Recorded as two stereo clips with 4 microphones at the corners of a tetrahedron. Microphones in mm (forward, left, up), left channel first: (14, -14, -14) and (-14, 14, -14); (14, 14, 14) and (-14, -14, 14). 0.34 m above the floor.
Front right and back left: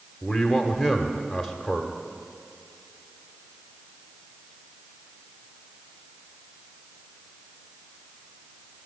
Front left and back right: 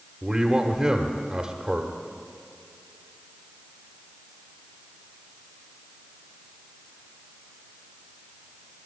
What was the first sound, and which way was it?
A man speaking, 145° right.